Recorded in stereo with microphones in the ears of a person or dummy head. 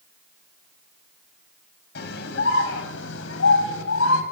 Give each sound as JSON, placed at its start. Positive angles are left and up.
{"t": 1.9, "sound": "a scream", "side_deg": 50, "distance_m": 9.5}